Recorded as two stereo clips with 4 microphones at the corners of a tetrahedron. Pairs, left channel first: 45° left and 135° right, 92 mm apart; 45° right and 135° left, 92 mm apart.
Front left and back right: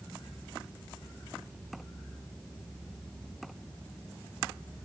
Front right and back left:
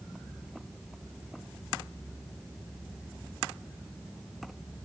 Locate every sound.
Only background noise.